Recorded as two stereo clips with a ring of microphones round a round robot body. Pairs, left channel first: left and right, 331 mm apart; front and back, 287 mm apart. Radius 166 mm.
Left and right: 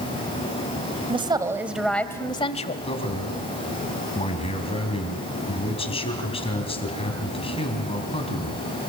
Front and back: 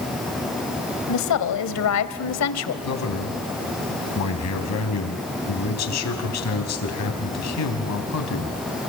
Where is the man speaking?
20° left, 3.5 m.